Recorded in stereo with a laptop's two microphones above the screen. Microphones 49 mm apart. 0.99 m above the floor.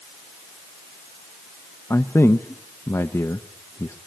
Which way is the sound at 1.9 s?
70° left (ahead or behind).